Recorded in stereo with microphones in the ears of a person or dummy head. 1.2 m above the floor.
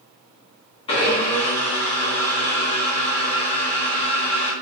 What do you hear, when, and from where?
0.9 s a blender: 20° left (ahead or behind), 1.1 m